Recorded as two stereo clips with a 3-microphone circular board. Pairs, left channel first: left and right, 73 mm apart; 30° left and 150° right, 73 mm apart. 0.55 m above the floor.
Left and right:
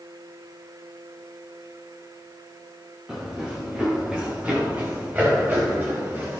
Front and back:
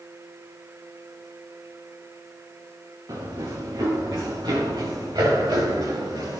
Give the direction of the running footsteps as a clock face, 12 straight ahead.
6 o'clock.